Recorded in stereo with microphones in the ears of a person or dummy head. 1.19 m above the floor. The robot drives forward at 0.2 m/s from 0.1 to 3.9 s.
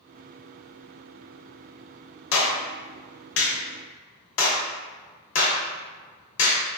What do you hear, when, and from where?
2.3 s a clap: 80° left, 0.8 m; by 6.6 s 70° left (ahead or behind), 0.8 m